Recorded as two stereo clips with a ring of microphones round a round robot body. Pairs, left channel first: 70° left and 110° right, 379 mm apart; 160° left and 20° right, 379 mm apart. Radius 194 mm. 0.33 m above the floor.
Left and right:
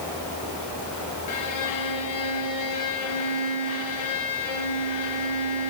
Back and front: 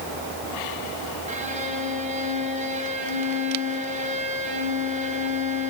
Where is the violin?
45° left, 2 m.